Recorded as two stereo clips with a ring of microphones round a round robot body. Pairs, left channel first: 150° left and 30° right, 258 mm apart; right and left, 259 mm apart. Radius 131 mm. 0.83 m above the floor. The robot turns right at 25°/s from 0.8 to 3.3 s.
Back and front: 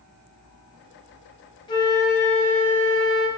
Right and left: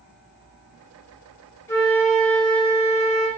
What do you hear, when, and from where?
1.7 s a flute: 160° right, 0.8 m; by 3.3 s 120° right, 0.8 m